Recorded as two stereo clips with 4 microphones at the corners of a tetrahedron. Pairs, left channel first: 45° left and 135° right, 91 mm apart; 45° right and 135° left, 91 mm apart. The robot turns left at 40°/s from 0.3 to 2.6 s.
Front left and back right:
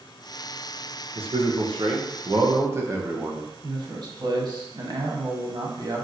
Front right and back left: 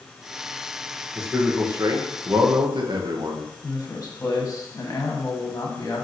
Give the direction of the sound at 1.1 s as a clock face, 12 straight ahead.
5 o'clock.